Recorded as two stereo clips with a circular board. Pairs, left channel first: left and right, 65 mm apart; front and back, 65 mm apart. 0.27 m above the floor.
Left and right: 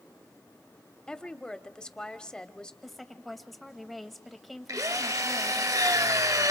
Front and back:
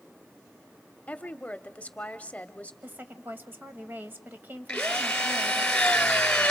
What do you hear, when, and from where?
1.1 s a woman speaking: 25° left, 1.0 m
2.8 s a woman speaking: straight behind, 1.3 m
4.7 s a drill: 80° right, 2 m